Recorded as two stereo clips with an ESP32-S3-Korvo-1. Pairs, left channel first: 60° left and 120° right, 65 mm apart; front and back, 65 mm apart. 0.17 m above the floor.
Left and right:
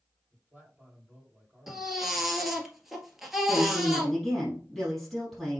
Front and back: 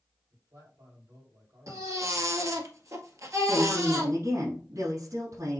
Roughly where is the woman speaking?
Behind left.